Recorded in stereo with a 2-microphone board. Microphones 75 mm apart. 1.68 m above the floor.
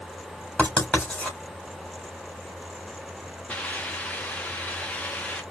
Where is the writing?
15° left (ahead or behind), 3 m.